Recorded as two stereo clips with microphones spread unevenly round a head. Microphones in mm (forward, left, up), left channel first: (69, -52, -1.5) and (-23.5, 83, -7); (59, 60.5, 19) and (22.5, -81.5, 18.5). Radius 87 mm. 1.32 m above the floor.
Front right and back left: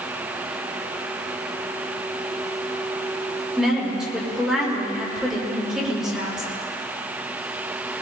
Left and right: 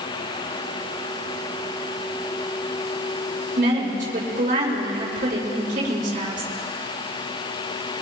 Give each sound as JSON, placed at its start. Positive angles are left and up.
{"t": 3.6, "sound": "a woman speaking", "azimuth_deg": -150, "distance_m": 5.0}